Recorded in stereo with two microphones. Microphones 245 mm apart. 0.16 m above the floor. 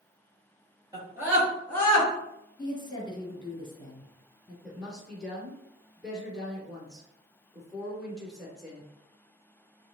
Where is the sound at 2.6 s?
20° left (ahead or behind), 2 m.